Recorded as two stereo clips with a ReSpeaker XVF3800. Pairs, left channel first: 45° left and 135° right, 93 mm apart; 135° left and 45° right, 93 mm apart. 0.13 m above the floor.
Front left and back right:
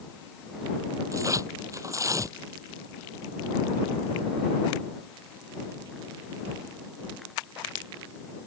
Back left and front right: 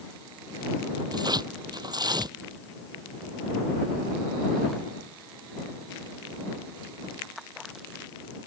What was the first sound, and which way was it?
Tearing paper, 80° right.